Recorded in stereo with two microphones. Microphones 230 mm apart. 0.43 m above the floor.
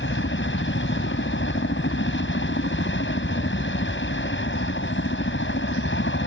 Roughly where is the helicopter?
Left.